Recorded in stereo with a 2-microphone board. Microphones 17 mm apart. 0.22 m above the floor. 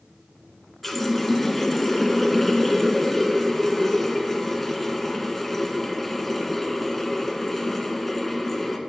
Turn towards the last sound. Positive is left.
turn(degrees=10)  # may be behind; listen again after turning